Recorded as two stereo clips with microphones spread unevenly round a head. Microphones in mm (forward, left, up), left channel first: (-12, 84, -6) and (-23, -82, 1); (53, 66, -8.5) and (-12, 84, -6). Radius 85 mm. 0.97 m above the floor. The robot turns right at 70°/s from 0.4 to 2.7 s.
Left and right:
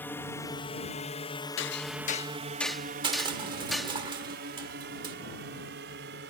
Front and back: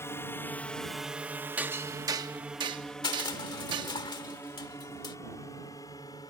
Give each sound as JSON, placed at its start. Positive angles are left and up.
{"t": 0.0, "sound": "a drone", "azimuth_deg": 10}
{"t": 1.6, "sound": "hammering", "azimuth_deg": 95}
{"t": 3.0, "sound": "crushing", "azimuth_deg": -30}